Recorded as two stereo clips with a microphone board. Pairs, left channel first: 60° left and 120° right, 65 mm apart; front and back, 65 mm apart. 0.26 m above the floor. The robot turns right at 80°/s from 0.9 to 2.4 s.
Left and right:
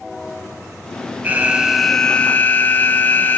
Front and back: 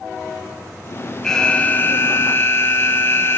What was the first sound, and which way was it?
An alarm, 80° right.